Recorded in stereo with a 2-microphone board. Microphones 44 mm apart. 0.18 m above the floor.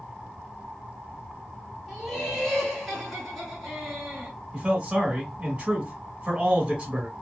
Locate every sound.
1.9 s laughter: 5° left (ahead or behind), 1.4 m
4.5 s a man speaking: 25° right (ahead or behind), 1.1 m